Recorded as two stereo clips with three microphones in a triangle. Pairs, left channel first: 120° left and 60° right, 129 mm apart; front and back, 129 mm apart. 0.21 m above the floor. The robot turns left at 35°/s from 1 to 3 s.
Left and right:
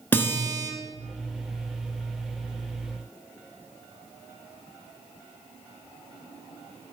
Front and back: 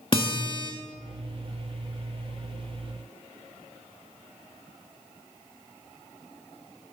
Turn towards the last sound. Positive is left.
turn(degrees=-20)